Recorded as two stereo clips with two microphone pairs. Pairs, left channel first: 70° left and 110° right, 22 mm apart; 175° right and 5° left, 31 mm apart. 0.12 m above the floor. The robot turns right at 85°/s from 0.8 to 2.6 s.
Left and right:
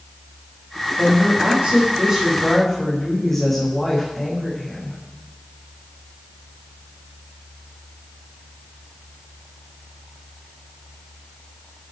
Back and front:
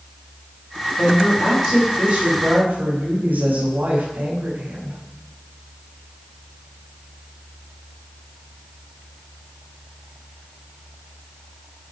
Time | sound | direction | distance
1.0 | a woman speaking | 150° right | 8.5 m